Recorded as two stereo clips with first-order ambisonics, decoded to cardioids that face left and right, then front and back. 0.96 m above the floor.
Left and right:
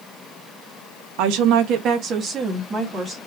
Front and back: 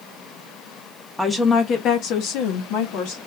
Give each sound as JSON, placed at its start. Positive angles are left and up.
{"t": 1.2, "sound": "a woman speaking", "azimuth_deg": -90, "distance_m": 1.1}